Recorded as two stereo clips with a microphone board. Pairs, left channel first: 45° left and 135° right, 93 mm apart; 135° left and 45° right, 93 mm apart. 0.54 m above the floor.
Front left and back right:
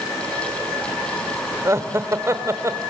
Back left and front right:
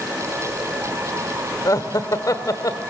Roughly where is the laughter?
Behind.